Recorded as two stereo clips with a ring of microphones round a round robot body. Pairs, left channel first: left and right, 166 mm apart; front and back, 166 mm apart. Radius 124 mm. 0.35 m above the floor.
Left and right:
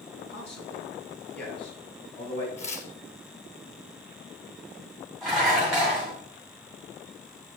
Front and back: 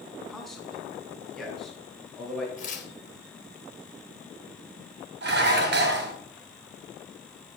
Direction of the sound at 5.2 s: Straight behind.